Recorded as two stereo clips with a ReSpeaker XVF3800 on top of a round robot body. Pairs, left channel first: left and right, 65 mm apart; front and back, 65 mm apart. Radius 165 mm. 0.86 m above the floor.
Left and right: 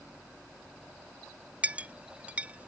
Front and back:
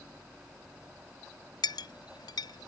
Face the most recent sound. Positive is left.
turn(degrees=-20)